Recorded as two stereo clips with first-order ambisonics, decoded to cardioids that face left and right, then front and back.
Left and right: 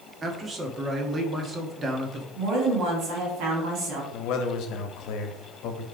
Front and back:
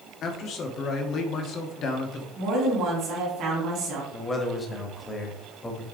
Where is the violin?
I don't hear a violin.